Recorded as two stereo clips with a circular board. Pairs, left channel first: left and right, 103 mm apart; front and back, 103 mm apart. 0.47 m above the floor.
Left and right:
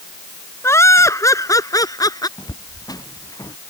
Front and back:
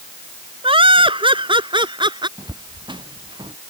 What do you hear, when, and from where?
0.6 s laughter: 155° left; by 2.3 s 140° left
2.4 s footsteps: 140° left; by 3.6 s 145° left